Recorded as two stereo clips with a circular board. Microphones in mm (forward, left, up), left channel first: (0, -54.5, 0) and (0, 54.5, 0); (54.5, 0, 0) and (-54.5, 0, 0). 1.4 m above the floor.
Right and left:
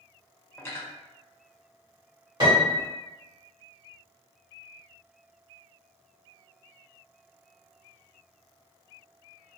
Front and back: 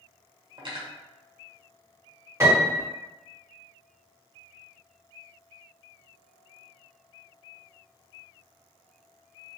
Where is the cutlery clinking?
155° right, 0.7 m.